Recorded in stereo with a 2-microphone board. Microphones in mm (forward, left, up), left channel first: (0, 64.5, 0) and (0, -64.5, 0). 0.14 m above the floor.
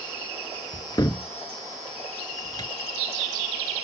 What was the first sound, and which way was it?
A cupboard door, 35° left (ahead or behind).